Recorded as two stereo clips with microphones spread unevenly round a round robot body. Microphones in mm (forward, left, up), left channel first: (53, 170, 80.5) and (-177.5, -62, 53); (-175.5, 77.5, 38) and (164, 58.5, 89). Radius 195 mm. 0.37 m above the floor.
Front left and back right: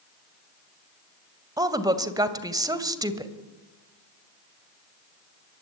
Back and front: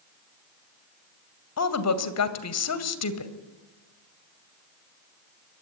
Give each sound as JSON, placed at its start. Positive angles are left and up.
{"t": 1.6, "sound": "a woman speaking", "azimuth_deg": 150, "distance_m": 2.5}